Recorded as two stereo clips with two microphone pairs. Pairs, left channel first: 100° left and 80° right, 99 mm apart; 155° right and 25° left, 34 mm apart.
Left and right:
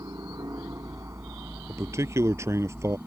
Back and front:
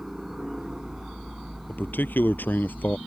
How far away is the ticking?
No ticking in this recording.